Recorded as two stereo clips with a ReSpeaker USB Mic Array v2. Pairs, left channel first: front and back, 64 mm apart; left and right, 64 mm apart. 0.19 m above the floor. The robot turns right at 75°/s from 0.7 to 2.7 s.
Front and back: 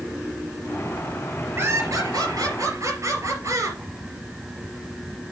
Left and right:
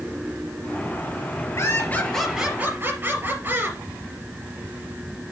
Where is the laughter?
130° left, 3.5 m; by 3.8 s 145° right, 3.5 m.